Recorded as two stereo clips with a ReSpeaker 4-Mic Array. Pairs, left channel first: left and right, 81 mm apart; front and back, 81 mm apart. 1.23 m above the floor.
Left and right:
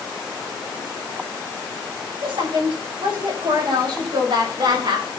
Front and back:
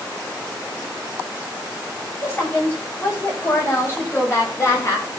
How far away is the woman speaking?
About 8.5 m.